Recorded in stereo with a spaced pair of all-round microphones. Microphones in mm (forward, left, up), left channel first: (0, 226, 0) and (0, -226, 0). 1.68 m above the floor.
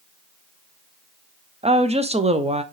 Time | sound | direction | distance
1.6 | a woman speaking | 15° right (ahead or behind) | 0.7 m